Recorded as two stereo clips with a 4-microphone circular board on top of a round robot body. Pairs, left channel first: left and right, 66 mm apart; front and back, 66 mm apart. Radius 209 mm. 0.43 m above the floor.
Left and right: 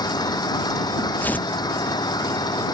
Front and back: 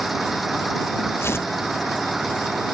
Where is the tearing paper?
35° left.